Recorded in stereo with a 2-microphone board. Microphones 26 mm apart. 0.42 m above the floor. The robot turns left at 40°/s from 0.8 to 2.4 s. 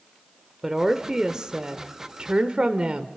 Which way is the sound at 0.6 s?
25° right.